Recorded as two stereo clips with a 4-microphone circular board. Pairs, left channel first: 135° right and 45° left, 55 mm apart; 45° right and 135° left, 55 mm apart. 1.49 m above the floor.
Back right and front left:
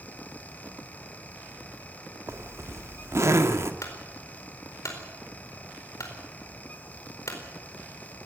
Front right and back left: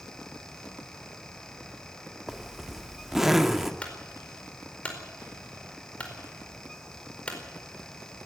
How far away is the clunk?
About 4.5 m.